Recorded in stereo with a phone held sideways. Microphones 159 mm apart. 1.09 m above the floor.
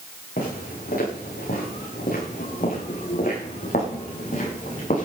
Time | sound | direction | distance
0.4 | footsteps | 70° left (ahead or behind) | 8 m